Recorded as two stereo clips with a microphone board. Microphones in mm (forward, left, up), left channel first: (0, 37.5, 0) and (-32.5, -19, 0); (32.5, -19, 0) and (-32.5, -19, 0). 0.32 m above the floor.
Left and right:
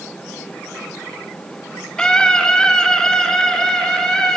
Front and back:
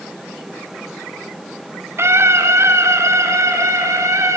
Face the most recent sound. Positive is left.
turn(degrees=140)